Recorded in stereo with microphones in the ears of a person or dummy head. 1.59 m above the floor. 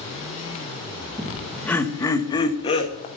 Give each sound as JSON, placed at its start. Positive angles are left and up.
{"t": 1.2, "sound": "laughter", "side_deg": -5, "distance_m": 1.5}